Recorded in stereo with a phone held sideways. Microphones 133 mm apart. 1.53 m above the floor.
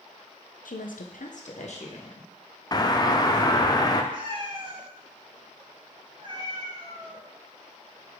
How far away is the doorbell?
About 0.7 m.